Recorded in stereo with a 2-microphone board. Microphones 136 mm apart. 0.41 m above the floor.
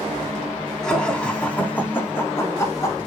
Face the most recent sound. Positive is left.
turn(degrees=25)  # may be behind; listen again after turning